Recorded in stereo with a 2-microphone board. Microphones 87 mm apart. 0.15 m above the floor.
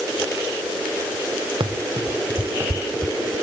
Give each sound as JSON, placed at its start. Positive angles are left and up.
{"t": 1.6, "sound": "running footsteps", "side_deg": -75}